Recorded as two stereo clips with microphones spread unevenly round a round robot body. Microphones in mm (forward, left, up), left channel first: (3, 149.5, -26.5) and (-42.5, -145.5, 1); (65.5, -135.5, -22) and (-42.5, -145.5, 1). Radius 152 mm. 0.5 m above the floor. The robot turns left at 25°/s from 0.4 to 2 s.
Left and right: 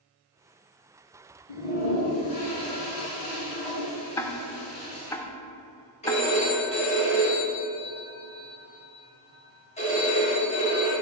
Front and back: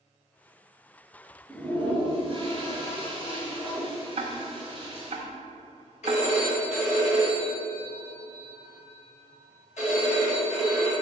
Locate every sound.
1.5 s a toilet flushing: 105° left, 4 m; by 5.2 s 90° left, 4 m
4.2 s ticking: 155° left, 0.8 m
6.0 s a phone ringing: 10° left, 3.5 m